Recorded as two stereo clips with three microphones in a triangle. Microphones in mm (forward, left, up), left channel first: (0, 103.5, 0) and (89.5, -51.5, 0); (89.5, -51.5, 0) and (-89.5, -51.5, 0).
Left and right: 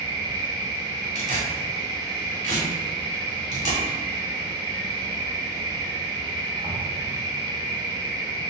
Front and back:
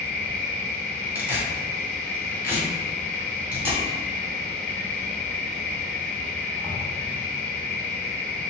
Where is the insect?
65° right, 1.5 m.